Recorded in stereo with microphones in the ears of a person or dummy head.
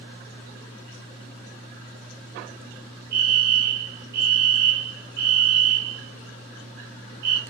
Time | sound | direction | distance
3.1 | a fire alarm | 60° right (ahead or behind) | 4.5 m